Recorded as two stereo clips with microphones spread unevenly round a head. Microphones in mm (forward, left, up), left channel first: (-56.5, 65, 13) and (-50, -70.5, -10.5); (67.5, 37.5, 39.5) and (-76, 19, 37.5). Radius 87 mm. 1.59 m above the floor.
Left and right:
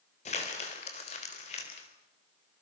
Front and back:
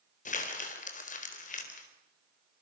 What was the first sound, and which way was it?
Crumpling, 40° left.